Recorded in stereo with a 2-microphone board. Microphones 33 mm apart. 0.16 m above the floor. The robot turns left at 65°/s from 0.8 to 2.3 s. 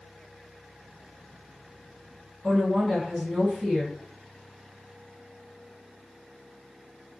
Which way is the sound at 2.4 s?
10° right (ahead or behind).